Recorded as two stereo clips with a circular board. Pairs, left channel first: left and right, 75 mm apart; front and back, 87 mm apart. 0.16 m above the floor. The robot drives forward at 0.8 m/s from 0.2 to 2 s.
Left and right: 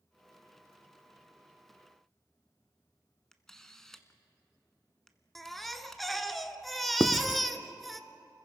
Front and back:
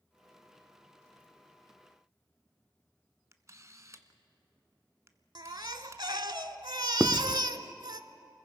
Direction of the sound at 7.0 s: 115° left.